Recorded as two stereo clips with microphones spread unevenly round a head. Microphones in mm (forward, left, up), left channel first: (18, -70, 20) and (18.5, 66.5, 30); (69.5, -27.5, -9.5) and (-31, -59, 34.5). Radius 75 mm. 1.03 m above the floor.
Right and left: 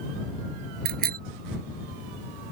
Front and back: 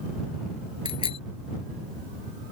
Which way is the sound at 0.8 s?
70° left.